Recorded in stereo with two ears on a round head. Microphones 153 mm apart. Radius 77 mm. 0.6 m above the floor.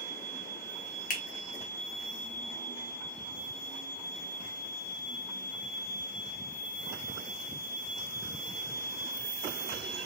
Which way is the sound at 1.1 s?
50° left (ahead or behind).